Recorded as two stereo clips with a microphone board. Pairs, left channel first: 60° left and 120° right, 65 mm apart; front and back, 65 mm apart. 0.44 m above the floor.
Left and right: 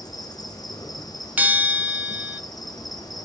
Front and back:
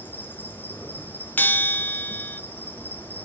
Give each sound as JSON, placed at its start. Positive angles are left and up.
{"t": 0.0, "sound": "an insect", "azimuth_deg": 60, "distance_m": 4.0}
{"t": 1.4, "sound": "a bell", "azimuth_deg": -60, "distance_m": 0.6}